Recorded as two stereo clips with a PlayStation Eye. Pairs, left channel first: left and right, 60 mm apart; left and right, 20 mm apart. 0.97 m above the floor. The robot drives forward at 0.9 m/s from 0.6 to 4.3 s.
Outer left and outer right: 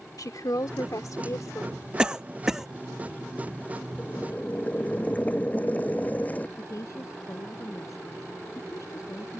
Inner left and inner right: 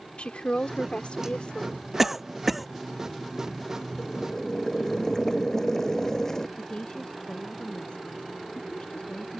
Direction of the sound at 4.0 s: 25° left (ahead or behind).